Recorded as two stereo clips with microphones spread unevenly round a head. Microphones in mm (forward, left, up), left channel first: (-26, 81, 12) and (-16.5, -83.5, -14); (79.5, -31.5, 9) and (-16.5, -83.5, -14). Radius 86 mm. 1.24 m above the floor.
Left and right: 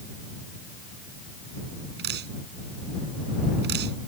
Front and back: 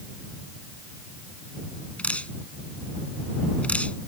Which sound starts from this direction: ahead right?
Dripping, at 2.0 s.